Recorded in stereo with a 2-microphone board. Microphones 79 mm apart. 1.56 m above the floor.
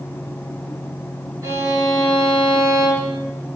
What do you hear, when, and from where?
1.4 s a violin: 45° right (ahead or behind), 5 m